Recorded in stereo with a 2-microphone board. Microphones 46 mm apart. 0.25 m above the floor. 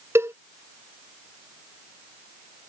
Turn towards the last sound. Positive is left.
turn(degrees=-70)  # may be behind; listen again after turning